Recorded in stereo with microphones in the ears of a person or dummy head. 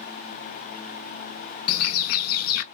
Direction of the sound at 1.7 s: 65° left (ahead or behind).